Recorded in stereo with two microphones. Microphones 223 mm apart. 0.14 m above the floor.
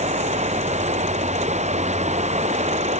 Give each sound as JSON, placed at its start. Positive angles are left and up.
{"t": 0.0, "sound": "running water", "side_deg": -30}